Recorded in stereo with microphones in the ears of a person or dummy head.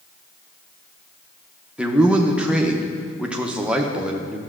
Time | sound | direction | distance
1.8 | a man speaking | 5° right (ahead or behind) | 0.6 m